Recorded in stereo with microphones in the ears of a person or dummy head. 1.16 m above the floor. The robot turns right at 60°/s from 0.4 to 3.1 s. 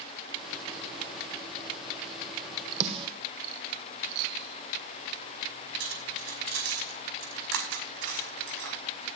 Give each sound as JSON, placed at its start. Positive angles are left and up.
{"t": 2.8, "sound": "a snare drum", "side_deg": -40, "distance_m": 2.0}
{"t": 5.8, "sound": "cutlery clinking", "side_deg": -75, "distance_m": 5.0}